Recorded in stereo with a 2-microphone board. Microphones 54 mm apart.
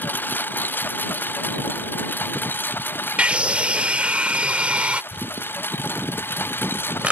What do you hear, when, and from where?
0.0 s a lawn mower: 40° left (ahead or behind); by 7.1 s 45° left (ahead or behind)
3.2 s a scream: 25° right (ahead or behind)
5.1 s crumpling: 25° right (ahead or behind)